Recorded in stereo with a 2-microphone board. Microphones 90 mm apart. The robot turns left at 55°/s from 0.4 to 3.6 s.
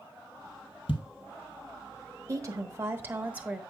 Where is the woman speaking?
90° right, 1.1 m; by 3.6 s 160° right, 1.1 m.